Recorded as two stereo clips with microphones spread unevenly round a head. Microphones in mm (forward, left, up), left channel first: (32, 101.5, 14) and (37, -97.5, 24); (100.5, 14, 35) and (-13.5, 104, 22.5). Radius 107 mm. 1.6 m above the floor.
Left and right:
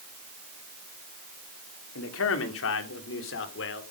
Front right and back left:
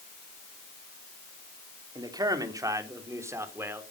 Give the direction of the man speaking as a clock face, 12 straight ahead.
9 o'clock.